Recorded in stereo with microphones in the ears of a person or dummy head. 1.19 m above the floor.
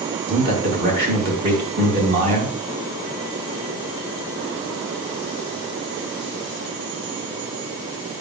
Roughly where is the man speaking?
Right.